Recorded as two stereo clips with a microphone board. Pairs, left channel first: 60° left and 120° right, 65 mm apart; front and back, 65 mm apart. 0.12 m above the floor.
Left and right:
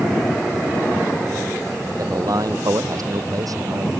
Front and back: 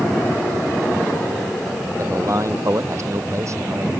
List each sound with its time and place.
2.0 s a man speaking: 140° right